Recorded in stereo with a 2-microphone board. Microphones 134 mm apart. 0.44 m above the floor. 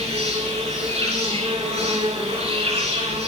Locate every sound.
0.0 s an insect: 55° right (ahead or behind), 9 m